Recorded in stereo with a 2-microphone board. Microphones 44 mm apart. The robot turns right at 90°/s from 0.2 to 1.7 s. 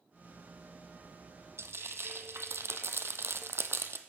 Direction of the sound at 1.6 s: 75° right (ahead or behind).